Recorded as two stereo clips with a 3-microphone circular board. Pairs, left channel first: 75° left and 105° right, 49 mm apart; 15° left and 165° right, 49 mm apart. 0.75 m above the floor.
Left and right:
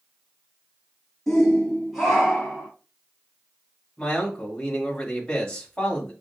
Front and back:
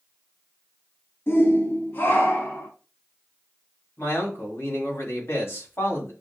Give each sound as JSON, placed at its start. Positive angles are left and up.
{"t": 1.3, "sound": "a shout", "azimuth_deg": -5, "distance_m": 0.8}
{"t": 4.0, "sound": "a man speaking", "azimuth_deg": 5, "distance_m": 1.9}